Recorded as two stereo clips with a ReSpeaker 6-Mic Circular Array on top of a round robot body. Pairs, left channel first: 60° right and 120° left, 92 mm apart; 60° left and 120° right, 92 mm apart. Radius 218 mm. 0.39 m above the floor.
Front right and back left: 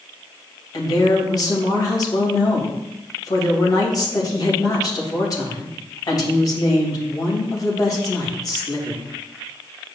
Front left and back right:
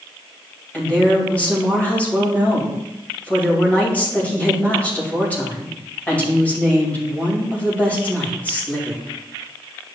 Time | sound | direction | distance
0.7 | a woman speaking | 15° right | 2.5 m